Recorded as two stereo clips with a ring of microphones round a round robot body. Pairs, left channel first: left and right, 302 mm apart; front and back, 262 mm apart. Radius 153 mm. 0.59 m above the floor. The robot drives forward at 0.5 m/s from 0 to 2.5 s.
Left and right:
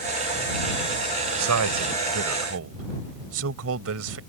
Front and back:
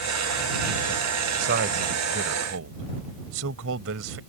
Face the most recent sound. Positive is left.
turn(degrees=-135)